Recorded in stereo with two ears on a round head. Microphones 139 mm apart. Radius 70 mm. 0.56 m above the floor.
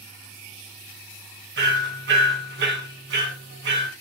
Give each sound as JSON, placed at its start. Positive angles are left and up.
{"t": 1.6, "sound": "hammering", "side_deg": -75, "distance_m": 4.0}